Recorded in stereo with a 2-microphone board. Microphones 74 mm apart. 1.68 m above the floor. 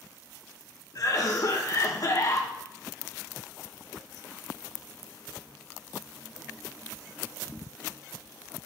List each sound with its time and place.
0.9 s a cough: 55° left (ahead or behind), 1.2 m